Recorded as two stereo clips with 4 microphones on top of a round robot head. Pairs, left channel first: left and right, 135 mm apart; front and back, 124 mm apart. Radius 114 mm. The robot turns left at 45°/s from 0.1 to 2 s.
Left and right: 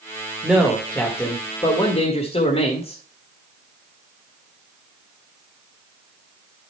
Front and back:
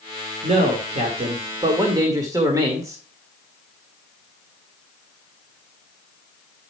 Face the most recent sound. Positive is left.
turn(degrees=120)